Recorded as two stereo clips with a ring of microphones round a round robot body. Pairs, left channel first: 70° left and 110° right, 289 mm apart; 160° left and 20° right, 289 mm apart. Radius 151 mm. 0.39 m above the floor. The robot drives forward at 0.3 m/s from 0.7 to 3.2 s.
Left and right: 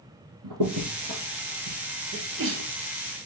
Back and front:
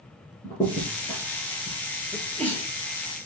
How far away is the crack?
About 4 m.